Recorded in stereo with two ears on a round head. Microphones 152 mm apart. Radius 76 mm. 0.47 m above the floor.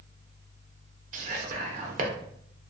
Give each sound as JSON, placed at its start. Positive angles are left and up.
{"t": 1.1, "sound": "whispering", "side_deg": -45, "distance_m": 0.9}